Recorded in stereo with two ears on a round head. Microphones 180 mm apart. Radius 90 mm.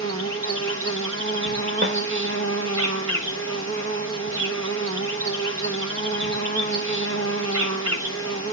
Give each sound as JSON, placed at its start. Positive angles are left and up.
{"t": 0.0, "sound": "an insect", "side_deg": -70, "distance_m": 1.4}
{"t": 1.8, "sound": "a snare drum", "side_deg": -60, "distance_m": 1.2}